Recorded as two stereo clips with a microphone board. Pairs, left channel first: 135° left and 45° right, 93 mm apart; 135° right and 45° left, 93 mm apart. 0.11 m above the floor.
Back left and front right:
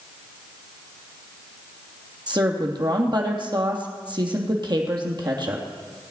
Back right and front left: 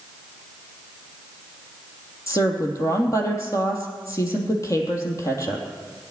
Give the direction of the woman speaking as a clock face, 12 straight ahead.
3 o'clock.